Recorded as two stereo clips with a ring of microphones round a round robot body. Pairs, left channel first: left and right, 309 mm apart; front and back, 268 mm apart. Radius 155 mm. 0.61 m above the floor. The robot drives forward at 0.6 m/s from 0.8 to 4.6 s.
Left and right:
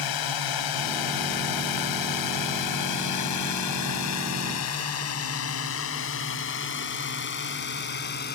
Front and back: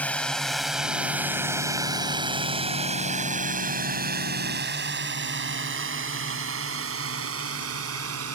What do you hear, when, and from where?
0.0 s a drone: 85° left; by 8.3 s 150° left